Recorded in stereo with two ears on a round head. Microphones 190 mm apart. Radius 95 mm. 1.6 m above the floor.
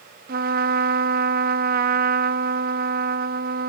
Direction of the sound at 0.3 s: 45° right (ahead or behind).